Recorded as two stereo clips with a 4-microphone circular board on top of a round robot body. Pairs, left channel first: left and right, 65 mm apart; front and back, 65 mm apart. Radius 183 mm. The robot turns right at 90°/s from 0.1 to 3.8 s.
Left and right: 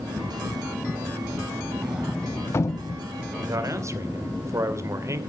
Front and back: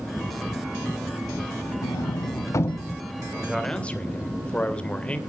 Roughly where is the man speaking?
Right.